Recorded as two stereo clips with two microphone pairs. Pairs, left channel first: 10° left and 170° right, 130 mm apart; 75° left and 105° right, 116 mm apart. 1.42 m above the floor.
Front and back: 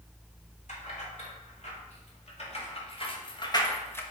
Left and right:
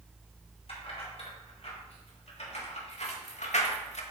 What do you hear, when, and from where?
0.7 s keys jangling: 35° left, 3 m; by 4.0 s 80° left, 1.0 m